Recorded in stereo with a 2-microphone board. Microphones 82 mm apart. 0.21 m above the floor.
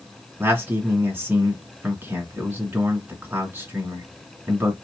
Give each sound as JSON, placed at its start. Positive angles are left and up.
{"t": 0.4, "sound": "a man speaking", "side_deg": -25, "distance_m": 2.0}